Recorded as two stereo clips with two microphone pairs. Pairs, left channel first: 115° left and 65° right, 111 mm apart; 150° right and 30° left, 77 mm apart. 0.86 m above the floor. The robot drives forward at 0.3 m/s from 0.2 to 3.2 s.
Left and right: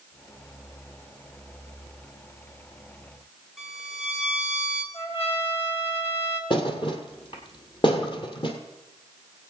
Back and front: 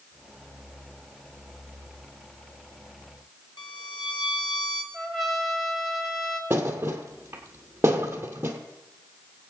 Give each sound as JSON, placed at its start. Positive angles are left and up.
{"t": 3.6, "sound": "a violin", "azimuth_deg": -150, "distance_m": 2.0}
{"t": 4.9, "sound": "a trumpet", "azimuth_deg": 115, "distance_m": 1.5}
{"t": 6.5, "sound": "a thud", "azimuth_deg": 85, "distance_m": 1.5}